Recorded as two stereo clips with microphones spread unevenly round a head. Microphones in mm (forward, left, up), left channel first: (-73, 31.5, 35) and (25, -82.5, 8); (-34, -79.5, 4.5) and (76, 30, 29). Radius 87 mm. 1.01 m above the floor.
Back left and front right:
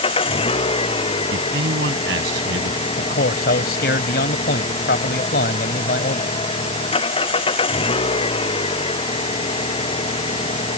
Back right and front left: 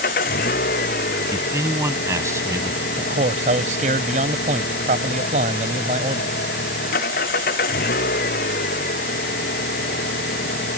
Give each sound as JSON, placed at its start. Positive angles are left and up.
{"t": 0.0, "sound": "an engine running", "azimuth_deg": -175}
{"t": 1.3, "sound": "a man speaking", "azimuth_deg": -25}
{"t": 3.0, "sound": "a man speaking", "azimuth_deg": 95}